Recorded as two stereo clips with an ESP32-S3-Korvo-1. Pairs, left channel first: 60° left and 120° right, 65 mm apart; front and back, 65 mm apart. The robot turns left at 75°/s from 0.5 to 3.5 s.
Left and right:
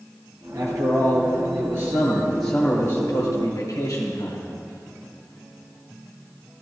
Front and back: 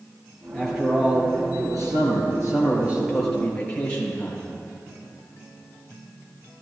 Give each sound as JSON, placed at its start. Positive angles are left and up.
{"t": 0.5, "sound": "a man speaking", "azimuth_deg": -75, "distance_m": 3.5}